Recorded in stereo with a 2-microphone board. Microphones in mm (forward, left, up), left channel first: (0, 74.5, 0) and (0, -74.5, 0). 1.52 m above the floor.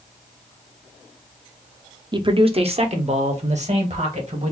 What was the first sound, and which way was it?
A man speaking, 30° right (ahead or behind).